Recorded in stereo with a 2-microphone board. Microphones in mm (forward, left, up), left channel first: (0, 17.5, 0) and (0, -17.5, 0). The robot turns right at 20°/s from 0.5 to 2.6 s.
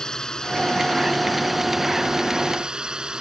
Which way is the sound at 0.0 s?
160° left.